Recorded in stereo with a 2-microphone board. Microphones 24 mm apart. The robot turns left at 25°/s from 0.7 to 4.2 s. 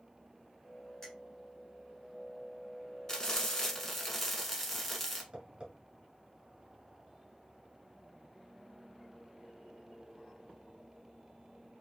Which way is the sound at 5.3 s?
40° right (ahead or behind).